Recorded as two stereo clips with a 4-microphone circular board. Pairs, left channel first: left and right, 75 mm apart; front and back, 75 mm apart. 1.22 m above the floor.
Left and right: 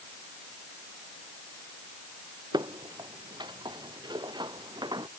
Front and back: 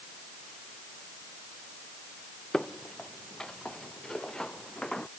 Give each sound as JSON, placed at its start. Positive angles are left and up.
{"t": 2.5, "sound": "footsteps", "azimuth_deg": -80}